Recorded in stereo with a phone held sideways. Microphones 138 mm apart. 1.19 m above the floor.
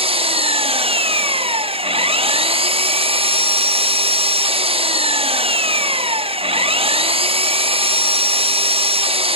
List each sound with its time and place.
0.0 s an engine running: 45° right (ahead or behind), 0.8 m